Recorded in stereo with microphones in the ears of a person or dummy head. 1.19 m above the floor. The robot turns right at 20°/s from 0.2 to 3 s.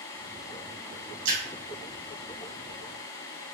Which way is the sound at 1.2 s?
70° right (ahead or behind).